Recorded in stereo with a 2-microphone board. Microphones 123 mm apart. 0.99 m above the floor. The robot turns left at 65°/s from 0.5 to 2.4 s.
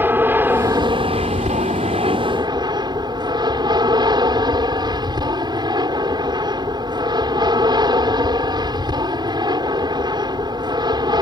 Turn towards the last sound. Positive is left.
turn(degrees=-140)